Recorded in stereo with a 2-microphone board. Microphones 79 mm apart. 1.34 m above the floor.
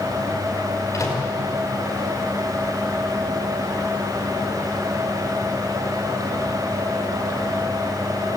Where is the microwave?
45° left (ahead or behind), 5 m.